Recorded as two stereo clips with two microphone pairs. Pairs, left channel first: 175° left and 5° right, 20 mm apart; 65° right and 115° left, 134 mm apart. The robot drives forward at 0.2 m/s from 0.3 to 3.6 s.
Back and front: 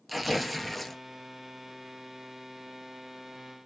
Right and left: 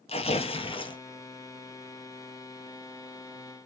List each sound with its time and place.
0.1 s tearing paper: 95° right, 0.5 m; by 1.0 s 110° right, 0.6 m